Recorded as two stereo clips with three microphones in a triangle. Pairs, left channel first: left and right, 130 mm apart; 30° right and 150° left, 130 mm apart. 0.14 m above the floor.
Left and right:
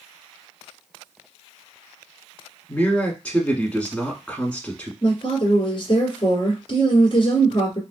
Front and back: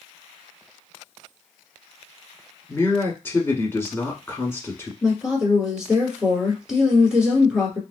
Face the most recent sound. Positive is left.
turn(degrees=70)